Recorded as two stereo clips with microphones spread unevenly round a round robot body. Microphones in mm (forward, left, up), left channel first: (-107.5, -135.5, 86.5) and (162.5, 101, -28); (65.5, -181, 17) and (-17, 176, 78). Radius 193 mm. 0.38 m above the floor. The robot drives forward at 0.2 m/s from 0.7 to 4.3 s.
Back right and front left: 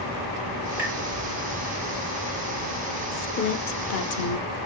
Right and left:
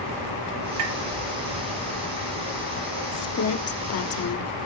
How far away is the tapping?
About 7 m.